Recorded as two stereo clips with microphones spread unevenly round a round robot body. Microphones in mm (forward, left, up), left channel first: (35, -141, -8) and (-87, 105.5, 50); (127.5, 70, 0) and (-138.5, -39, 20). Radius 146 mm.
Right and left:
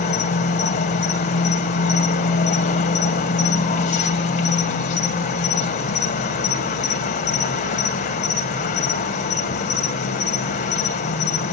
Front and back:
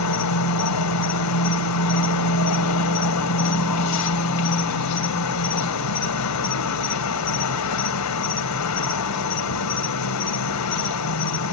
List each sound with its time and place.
0.0 s an insect: 5° right, 1.9 m